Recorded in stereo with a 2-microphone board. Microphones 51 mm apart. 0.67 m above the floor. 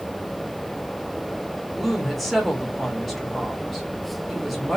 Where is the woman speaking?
Centre (ahead or behind), 1.2 m.